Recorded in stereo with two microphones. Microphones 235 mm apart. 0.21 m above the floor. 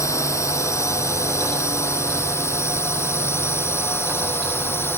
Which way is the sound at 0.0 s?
10° left (ahead or behind).